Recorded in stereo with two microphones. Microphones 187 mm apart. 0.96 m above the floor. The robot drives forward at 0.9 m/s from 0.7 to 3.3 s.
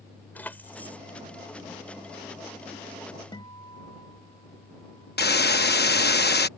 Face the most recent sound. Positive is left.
turn(degrees=60)  # may be behind; listen again after turning